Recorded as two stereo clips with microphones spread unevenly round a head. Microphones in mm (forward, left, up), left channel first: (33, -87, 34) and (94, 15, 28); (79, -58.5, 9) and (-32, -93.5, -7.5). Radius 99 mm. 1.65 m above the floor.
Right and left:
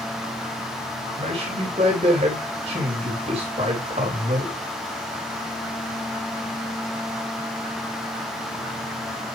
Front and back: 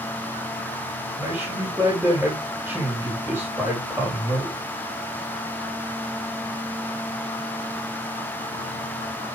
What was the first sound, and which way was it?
A man speaking, 115° left.